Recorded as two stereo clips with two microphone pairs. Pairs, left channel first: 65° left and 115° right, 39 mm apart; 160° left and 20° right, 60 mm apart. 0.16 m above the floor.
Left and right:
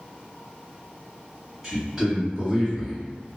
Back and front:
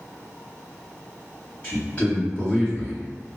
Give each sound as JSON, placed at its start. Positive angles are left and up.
{"t": 1.6, "sound": "a man speaking", "azimuth_deg": 165, "distance_m": 1.5}